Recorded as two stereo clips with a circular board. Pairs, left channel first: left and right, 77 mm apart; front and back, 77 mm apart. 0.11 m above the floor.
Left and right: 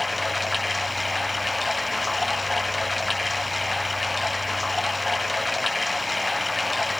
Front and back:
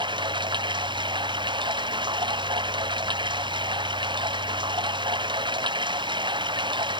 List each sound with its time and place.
0.0 s running water: straight behind